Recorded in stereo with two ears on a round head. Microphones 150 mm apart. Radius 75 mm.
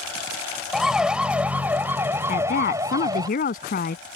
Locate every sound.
0.7 s a siren: 5° right (ahead or behind); by 3.3 s 25° right (ahead or behind)
2.3 s a woman speaking: 55° left (ahead or behind)